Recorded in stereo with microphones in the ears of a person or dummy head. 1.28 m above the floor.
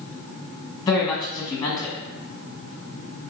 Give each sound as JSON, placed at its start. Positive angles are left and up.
{"t": 0.9, "sound": "a woman speaking", "side_deg": 15, "distance_m": 1.3}